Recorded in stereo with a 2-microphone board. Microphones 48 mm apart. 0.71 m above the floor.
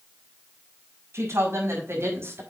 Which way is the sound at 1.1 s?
70° right (ahead or behind).